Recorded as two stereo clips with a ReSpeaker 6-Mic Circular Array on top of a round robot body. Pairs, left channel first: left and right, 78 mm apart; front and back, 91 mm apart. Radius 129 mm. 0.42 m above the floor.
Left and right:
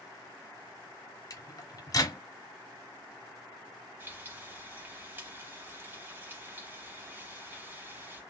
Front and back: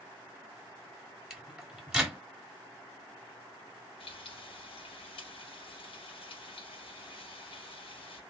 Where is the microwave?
100° left, 1.4 m.